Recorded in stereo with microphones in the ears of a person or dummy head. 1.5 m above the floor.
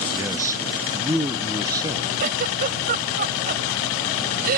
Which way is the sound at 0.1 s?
15° right (ahead or behind).